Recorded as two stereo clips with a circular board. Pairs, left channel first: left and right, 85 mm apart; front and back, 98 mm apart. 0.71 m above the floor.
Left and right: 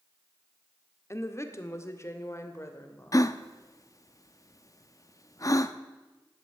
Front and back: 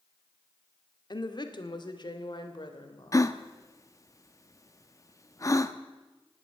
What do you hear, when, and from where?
1.1 s a woman speaking: 35° left, 1.5 m
3.1 s a gasp: 50° left, 0.7 m